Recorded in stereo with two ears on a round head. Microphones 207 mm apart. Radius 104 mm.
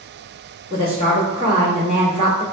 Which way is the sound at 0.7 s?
25° right (ahead or behind).